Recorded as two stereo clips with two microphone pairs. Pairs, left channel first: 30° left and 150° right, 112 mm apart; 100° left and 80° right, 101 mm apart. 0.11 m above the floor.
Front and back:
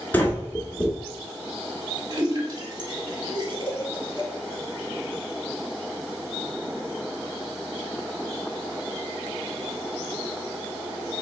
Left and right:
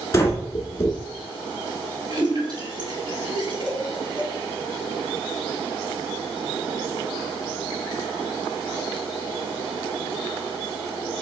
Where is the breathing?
85° left, 1.2 m.